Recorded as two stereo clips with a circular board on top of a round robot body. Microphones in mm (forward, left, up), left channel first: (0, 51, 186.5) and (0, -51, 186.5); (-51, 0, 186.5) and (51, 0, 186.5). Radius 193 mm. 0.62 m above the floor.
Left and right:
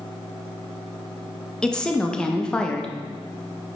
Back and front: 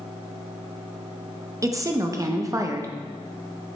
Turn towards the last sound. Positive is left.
turn(degrees=15)